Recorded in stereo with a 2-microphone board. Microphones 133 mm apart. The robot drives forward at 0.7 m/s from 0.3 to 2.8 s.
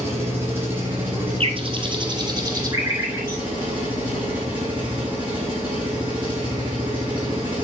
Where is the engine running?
20° right (ahead or behind), 5 m; by 7.6 s 15° right (ahead or behind), 7 m.